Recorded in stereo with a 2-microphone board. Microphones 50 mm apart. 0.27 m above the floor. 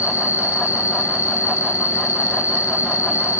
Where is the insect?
85° left, 1.4 m.